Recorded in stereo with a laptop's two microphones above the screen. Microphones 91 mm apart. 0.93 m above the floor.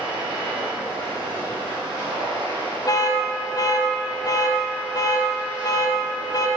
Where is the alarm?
40° left (ahead or behind), 0.8 m.